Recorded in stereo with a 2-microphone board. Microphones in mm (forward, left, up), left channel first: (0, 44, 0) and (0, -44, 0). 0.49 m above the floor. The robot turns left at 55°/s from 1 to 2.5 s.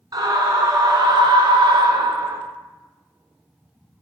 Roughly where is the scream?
Ahead right.